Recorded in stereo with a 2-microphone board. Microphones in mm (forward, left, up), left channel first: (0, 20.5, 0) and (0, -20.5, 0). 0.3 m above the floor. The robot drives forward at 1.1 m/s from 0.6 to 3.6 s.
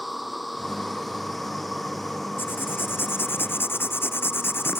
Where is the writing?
65° left (ahead or behind); by 4.8 s 70° left (ahead or behind).